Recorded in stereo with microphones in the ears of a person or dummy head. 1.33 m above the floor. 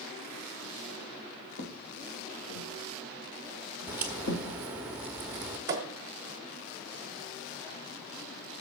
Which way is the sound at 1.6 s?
55° left (ahead or behind).